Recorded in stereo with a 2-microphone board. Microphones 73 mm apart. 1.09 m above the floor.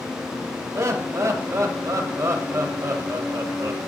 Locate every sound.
0.8 s laughter: 40° right (ahead or behind), 1.3 m